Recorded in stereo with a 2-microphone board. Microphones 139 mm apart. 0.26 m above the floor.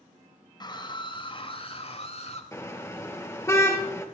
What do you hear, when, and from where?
0.6 s a scream: 30° left (ahead or behind), 6 m; by 2.4 s 55° left (ahead or behind), 5.5 m
2.5 s a car horn: 20° left (ahead or behind), 2.5 m